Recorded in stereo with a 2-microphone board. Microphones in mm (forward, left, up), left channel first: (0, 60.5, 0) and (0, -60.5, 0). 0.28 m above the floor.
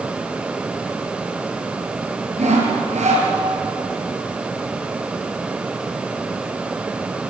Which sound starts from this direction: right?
Sawing, at 2.4 s.